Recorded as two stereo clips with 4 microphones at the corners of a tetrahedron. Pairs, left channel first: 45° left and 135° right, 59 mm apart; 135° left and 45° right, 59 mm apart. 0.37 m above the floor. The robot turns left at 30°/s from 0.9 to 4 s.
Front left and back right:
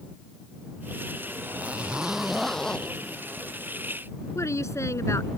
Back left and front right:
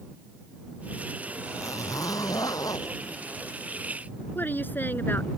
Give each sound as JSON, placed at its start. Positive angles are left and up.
{"t": 1.4, "sound": "a zipper", "azimuth_deg": 165}
{"t": 4.3, "sound": "a woman speaking", "azimuth_deg": 80}